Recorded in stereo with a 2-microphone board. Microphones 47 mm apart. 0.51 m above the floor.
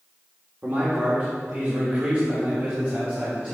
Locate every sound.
0.6 s a man speaking: 40° right (ahead or behind), 1.4 m; by 3.5 s 30° right (ahead or behind), 3.5 m